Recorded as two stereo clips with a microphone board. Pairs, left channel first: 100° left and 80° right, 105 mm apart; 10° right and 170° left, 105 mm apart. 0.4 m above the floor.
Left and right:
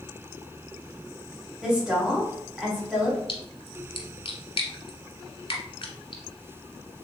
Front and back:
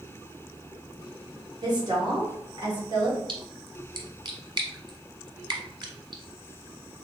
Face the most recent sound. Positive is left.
turn(degrees=135)